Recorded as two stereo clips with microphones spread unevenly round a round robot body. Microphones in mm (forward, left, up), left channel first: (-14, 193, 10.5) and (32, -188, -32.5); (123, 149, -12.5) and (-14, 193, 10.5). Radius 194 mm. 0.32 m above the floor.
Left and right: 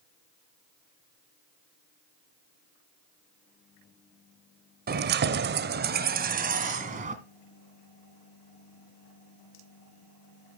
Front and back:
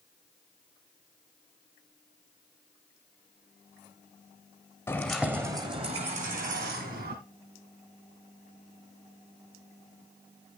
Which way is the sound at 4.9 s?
60° right.